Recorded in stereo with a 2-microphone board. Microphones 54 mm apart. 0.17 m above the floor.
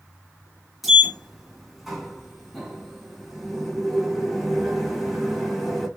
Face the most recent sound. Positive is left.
turn(degrees=0)  # may be behind; listen again after turning